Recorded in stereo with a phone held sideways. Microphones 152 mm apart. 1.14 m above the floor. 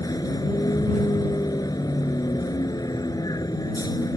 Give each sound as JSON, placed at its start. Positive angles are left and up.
{"t": 0.0, "sound": "a vehicle", "side_deg": 25}